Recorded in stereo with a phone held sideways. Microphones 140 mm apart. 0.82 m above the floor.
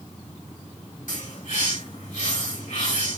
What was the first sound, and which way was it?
A bird, 75° left (ahead or behind).